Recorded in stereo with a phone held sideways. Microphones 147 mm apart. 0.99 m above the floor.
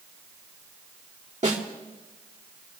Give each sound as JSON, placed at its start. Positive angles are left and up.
{"t": 1.4, "sound": "a snare drum", "side_deg": -55, "distance_m": 2.5}